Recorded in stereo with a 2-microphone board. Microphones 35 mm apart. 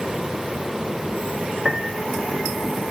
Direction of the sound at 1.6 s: 10° right (ahead or behind).